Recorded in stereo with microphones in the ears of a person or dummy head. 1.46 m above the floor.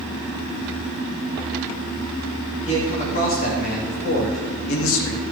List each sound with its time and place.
2.6 s a man speaking: 40° left (ahead or behind), 2.5 m; by 5.2 s 85° left, 2 m